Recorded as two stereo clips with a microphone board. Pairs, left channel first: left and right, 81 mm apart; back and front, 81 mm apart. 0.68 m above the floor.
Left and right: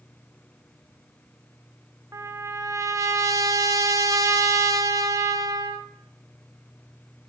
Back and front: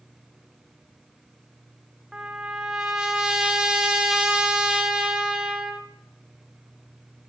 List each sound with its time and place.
2.1 s a trumpet: 80° right, 0.9 m